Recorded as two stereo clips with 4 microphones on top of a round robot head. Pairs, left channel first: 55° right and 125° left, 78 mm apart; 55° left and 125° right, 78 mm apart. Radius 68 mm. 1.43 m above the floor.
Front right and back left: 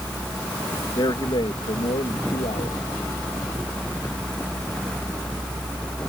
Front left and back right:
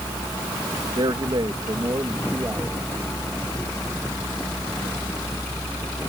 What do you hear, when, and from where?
1.0 s a man speaking: 90° right; by 2.8 s 55° right